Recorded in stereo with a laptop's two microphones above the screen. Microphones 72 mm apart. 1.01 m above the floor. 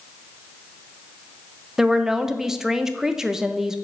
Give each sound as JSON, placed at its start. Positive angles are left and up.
{"t": 1.8, "sound": "a woman speaking", "side_deg": -10, "distance_m": 0.5}